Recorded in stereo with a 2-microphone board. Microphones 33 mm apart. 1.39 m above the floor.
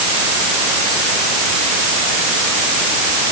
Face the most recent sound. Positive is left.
No sound to turn to.